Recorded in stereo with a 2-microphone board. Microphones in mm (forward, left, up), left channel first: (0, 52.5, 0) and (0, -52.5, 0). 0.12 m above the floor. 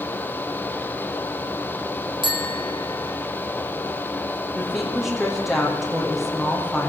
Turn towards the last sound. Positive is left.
turn(degrees=0)  # may be behind; listen again after turning